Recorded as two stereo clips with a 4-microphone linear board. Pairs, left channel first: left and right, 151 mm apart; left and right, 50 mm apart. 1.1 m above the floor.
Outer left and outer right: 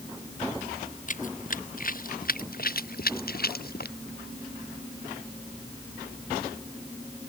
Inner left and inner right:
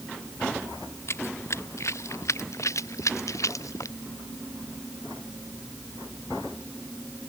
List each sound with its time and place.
1.1 s running footsteps: 55° left (ahead or behind); by 4.0 s 75° left (ahead or behind)